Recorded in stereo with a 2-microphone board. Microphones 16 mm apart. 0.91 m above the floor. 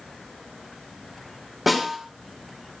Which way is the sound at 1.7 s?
5° right (ahead or behind).